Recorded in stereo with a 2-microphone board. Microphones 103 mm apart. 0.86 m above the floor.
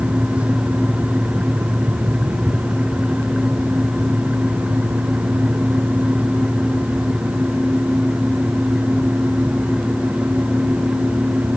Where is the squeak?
No squeak in this recording.